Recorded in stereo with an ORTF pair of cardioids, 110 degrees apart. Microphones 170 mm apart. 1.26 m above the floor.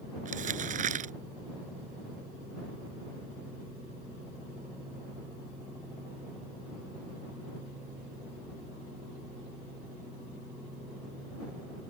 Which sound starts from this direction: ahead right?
Crumpling, at 0.2 s.